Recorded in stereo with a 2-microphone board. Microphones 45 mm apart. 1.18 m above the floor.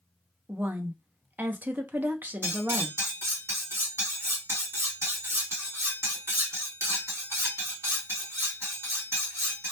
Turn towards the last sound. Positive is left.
turn(degrees=-70)  # may be behind; listen again after turning